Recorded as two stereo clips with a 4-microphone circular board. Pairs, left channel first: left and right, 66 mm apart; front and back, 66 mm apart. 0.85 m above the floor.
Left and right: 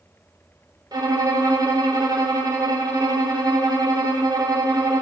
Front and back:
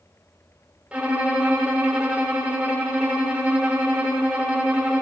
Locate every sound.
0.9 s a violin: 110° right, 2.5 m